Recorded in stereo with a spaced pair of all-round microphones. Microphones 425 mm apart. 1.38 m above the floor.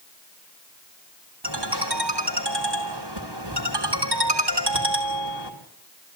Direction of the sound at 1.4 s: 75° right (ahead or behind).